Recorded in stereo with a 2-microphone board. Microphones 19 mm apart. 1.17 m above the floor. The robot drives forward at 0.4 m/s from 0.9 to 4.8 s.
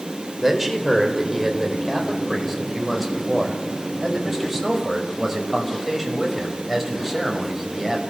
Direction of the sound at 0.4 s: 10° right (ahead or behind).